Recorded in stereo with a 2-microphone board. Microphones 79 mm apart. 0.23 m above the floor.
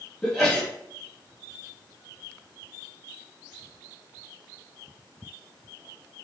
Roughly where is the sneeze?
Centre.